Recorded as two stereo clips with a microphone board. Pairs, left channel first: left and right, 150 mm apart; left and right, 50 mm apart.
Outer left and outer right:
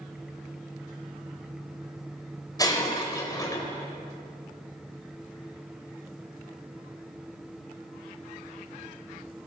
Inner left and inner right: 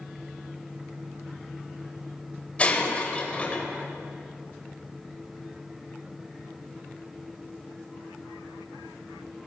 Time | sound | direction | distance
2.6 | breaking glass | 25° left (ahead or behind) | 3.5 m